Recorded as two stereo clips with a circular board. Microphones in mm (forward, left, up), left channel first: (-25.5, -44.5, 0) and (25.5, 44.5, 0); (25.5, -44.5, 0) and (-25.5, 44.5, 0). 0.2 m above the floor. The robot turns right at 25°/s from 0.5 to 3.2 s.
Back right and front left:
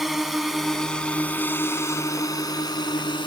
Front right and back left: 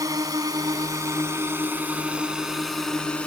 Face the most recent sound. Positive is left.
turn(degrees=-135)